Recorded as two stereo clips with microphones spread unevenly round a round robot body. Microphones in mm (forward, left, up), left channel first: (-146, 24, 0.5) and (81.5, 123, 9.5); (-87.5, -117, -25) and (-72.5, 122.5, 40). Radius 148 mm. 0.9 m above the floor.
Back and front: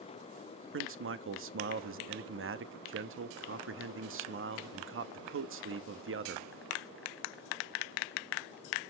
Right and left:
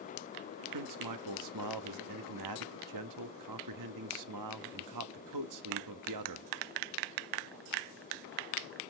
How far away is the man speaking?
About 1.2 m.